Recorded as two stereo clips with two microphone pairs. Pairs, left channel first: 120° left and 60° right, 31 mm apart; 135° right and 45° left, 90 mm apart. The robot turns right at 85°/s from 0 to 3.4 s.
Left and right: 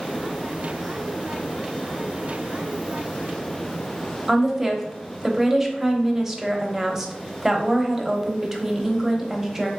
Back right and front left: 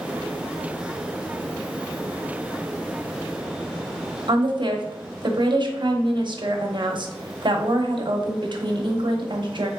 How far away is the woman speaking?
About 0.7 m.